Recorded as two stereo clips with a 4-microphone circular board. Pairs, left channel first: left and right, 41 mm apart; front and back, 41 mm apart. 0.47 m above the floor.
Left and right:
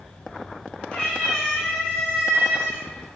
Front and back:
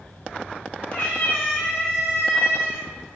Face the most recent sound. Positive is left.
turn(degrees=-20)